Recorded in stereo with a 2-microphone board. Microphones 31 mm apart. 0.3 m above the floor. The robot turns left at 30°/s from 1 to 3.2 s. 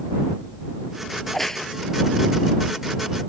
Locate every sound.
1.2 s a crack: centre (ahead or behind); by 1.7 s 15° left (ahead or behind)